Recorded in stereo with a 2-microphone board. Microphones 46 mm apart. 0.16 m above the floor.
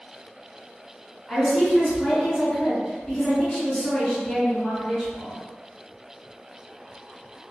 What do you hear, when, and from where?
1.3 s a woman speaking: 20° left (ahead or behind), 2.0 m